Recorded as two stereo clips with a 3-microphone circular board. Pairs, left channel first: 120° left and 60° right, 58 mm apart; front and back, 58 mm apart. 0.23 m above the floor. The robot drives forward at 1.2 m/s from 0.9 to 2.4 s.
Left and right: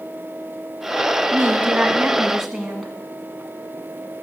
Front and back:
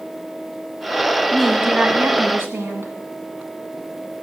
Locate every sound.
1.3 s a woman speaking: 80° right, 1.2 m; by 2.9 s 150° right, 1.7 m